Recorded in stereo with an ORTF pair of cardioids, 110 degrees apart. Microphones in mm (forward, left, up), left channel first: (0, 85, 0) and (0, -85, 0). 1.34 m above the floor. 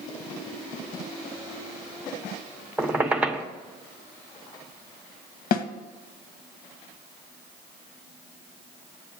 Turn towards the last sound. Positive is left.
turn(degrees=60)